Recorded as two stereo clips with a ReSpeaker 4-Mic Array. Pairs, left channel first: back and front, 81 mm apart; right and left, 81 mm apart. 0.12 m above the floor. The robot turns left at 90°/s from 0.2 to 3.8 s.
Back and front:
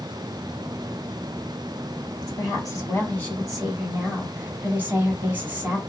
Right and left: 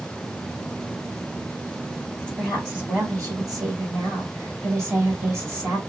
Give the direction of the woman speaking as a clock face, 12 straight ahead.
5 o'clock.